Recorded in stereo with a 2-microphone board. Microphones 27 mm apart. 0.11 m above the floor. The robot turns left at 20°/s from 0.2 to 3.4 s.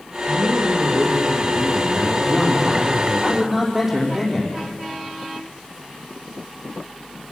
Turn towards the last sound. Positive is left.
turn(degrees=-5)  # may be behind; listen again after turning